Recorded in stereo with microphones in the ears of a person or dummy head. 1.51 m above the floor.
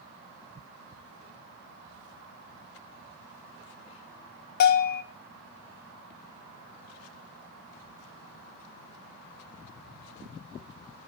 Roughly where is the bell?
Left.